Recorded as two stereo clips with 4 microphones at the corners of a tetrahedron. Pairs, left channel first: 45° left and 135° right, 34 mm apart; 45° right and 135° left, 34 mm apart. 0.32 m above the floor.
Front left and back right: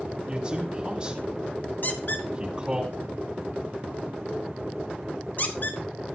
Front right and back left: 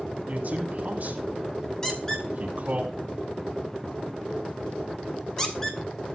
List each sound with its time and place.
0.3 s a man speaking: 165° left, 2.5 m
1.8 s a squeak: 30° left, 1.5 m